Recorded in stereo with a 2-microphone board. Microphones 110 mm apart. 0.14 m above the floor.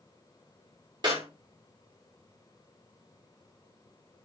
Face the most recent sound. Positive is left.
turn(degrees=-40)  # may be behind; listen again after turning